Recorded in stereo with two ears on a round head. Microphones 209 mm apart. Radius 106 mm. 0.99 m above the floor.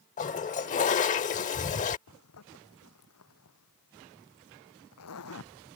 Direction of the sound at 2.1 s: 75° left (ahead or behind).